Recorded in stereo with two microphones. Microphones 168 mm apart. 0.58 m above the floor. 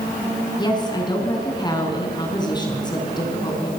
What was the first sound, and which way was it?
A woman speaking, 25° left (ahead or behind).